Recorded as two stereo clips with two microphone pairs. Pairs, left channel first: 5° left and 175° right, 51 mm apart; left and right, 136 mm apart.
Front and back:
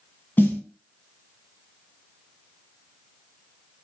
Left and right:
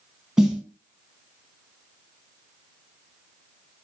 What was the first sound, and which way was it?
A snare drum, 10° right.